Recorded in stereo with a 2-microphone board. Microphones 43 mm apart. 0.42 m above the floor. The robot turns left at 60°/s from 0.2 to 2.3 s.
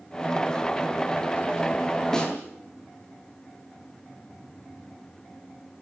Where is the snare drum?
10° left (ahead or behind), 9 m; by 2.3 s 20° left (ahead or behind), 9 m.